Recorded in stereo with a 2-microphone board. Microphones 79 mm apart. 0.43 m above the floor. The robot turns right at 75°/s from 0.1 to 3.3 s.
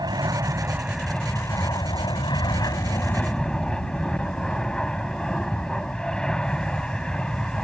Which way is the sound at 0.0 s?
70° right.